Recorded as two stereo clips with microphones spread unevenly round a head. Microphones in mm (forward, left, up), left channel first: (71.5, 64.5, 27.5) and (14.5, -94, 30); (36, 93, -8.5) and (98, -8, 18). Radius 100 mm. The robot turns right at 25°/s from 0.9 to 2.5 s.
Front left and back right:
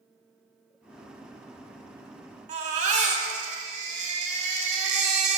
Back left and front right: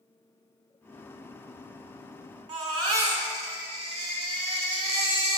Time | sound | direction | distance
2.5 | a baby crying | 85° right | 1.2 m